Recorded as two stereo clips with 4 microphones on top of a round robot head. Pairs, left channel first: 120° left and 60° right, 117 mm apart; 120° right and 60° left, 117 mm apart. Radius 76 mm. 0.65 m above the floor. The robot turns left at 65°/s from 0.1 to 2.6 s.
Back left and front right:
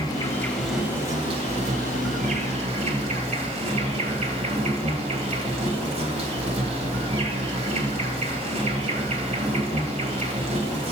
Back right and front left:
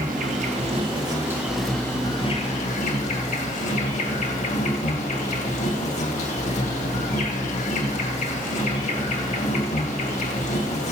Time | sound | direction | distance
0.0 | an insect | 70° left | 2.5 m